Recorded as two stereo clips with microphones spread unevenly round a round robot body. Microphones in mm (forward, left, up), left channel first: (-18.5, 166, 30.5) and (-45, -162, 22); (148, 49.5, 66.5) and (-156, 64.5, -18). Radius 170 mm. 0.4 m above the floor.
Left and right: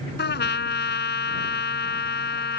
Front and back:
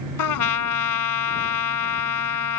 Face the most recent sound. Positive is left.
turn(degrees=25)